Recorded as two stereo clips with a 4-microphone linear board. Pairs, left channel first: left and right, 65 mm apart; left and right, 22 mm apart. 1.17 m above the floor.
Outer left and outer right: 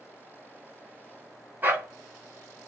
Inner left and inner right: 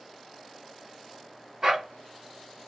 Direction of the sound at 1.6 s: 30° right (ahead or behind).